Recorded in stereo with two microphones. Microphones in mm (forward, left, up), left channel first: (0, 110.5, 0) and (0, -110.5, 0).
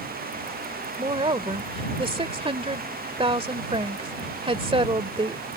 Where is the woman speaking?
25° right (ahead or behind).